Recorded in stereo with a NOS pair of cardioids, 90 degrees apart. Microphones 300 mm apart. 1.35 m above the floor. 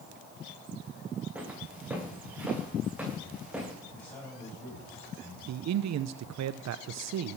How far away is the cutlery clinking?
No cutlery clinking in this recording.